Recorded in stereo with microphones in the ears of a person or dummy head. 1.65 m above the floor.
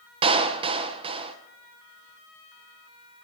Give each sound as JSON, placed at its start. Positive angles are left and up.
{"t": 0.2, "sound": "a clap", "side_deg": -30, "distance_m": 1.0}